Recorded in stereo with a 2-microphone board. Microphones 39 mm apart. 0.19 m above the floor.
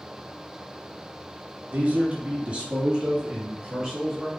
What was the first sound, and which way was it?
A man speaking, 40° right (ahead or behind).